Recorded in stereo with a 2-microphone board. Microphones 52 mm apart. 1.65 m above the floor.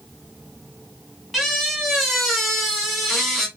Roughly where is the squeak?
Centre.